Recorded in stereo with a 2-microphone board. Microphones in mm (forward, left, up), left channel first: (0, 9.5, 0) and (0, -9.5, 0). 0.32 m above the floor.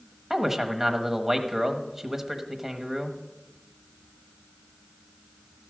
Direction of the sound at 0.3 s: 20° right (ahead or behind).